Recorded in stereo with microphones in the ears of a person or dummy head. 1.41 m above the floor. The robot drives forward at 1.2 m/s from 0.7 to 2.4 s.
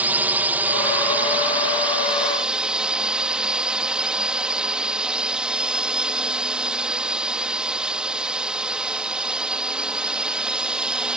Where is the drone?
5° right (ahead or behind).